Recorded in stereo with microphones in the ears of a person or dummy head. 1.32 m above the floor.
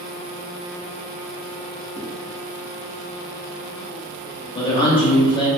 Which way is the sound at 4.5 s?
25° left (ahead or behind).